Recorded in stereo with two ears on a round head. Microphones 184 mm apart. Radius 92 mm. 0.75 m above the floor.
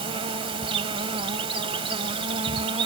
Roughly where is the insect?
Right.